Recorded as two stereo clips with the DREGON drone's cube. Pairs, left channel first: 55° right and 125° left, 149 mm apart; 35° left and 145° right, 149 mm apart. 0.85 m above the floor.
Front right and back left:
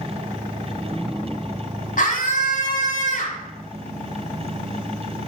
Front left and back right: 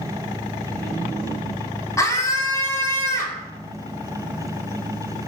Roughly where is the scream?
Ahead right.